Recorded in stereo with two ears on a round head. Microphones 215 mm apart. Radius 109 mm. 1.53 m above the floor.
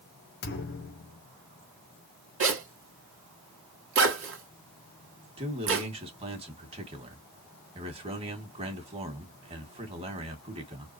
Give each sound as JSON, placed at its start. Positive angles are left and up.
{"t": 0.4, "sound": "a thud", "side_deg": 45, "distance_m": 1.8}
{"t": 2.4, "sound": "a zipper", "side_deg": -60, "distance_m": 2.0}
{"t": 5.4, "sound": "a man speaking", "side_deg": -25, "distance_m": 2.0}